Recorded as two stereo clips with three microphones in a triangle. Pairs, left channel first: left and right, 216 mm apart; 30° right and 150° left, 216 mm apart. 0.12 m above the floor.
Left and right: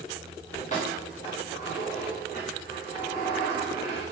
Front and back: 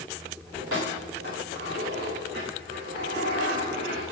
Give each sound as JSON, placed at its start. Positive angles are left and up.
{"t": 0.6, "sound": "keys jangling", "azimuth_deg": 145, "distance_m": 8.0}